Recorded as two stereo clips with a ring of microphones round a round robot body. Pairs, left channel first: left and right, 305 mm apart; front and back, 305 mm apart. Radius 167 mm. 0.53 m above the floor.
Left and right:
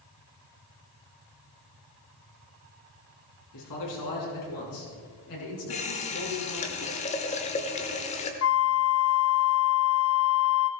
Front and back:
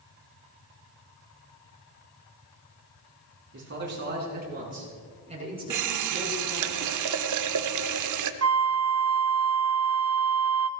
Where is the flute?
140° left, 0.7 m.